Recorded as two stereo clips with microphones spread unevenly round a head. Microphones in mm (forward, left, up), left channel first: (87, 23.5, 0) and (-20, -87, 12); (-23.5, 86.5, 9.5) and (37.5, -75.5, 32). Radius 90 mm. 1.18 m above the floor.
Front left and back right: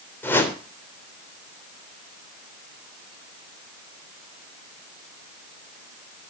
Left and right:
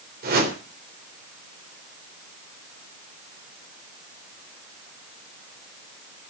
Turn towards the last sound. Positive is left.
turn(degrees=-30)